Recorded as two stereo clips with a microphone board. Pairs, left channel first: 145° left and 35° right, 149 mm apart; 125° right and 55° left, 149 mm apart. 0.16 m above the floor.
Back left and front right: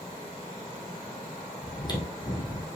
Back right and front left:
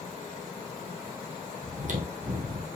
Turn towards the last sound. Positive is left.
turn(degrees=85)